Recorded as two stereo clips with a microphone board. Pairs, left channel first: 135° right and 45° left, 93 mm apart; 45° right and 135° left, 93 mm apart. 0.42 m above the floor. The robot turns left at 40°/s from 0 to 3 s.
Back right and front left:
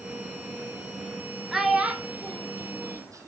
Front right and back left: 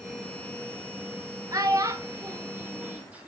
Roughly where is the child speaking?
Behind left.